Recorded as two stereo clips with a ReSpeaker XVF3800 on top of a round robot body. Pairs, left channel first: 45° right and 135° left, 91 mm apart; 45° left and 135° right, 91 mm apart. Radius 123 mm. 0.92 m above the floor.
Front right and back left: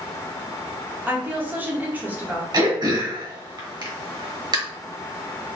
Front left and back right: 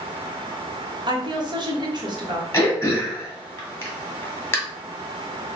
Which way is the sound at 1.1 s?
155° right.